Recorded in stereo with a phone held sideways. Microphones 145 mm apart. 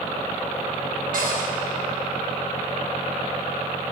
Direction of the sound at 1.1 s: 70° right (ahead or behind).